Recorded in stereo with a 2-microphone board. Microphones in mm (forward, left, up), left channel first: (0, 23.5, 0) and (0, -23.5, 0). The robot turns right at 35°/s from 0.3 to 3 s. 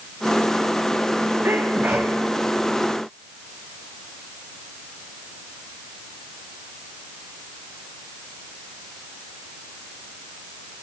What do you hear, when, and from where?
1.4 s a sneeze: 55° right (ahead or behind), 2.5 m; by 2.2 s 30° right (ahead or behind), 2.5 m